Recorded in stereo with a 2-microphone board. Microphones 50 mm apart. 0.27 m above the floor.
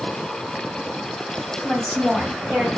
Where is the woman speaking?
Centre (ahead or behind), 1.6 m.